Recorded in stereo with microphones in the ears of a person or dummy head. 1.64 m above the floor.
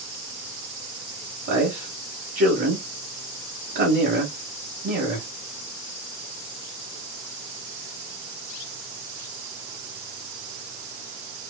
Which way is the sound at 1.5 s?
50° right (ahead or behind).